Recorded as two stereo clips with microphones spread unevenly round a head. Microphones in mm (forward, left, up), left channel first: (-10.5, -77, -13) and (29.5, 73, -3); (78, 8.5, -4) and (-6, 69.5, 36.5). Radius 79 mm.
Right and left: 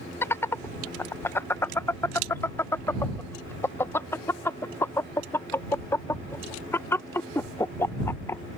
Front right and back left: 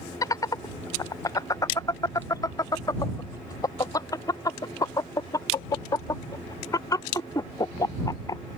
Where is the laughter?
35° right.